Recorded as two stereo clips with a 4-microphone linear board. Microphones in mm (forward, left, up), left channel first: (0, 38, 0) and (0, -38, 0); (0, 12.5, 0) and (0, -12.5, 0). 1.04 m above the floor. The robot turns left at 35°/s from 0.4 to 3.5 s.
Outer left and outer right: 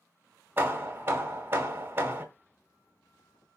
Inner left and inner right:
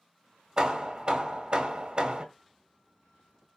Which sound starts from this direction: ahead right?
Hammering, at 0.6 s.